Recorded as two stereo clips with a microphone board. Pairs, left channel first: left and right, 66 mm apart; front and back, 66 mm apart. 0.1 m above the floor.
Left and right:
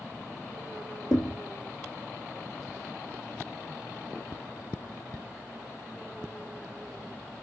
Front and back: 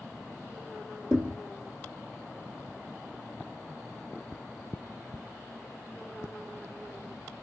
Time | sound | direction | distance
1.1 | a thud | 95° left | 1.4 m